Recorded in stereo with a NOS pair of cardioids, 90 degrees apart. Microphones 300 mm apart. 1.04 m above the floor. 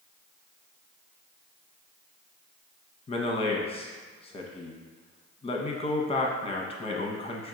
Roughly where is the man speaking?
Ahead.